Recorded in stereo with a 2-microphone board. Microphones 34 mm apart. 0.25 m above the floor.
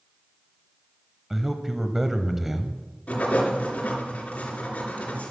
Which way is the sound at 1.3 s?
10° right (ahead or behind).